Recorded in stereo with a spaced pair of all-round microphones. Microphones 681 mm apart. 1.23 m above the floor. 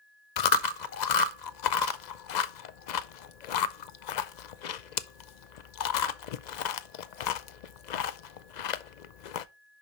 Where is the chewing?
90° left, 0.7 m.